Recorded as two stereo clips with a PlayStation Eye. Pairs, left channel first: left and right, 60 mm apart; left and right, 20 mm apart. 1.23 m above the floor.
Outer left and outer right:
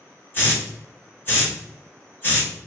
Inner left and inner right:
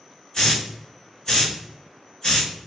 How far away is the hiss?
About 1.2 m.